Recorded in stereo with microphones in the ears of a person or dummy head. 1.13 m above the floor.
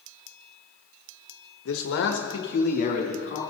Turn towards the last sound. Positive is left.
turn(degrees=40)  # may be behind; listen again after turning